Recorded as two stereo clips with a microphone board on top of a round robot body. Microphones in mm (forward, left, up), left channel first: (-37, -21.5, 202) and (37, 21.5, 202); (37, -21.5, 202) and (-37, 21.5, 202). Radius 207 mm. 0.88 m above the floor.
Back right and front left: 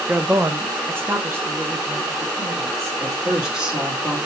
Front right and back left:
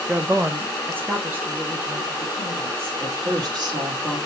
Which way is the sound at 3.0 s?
115° left.